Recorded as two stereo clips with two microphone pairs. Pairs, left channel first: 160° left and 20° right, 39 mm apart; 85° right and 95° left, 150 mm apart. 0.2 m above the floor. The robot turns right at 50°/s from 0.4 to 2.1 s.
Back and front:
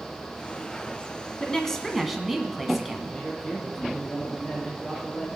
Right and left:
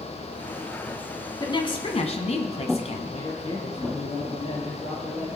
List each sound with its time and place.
1.4 s a woman speaking: 135° right, 1.5 m; by 3.1 s 100° right, 1.5 m
3.1 s a man speaking: 125° right, 6 m